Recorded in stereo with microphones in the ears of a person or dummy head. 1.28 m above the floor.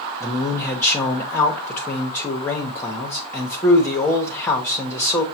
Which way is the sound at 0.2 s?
15° left (ahead or behind).